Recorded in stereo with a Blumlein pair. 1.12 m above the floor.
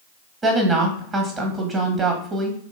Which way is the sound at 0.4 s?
20° right.